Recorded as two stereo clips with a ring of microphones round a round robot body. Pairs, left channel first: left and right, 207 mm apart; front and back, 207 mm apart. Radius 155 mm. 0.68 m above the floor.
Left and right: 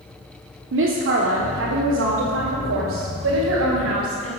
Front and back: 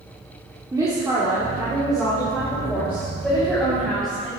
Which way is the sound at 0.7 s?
105° right.